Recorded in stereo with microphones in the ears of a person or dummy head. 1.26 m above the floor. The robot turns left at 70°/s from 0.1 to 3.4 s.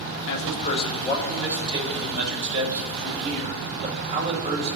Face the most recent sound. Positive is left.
turn(degrees=-145)